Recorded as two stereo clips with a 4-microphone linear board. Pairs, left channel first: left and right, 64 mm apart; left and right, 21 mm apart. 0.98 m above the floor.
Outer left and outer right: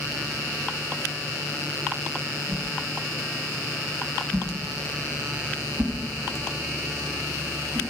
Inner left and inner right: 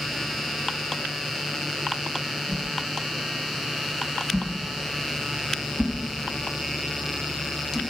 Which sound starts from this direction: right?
A whoosh, at 2.5 s.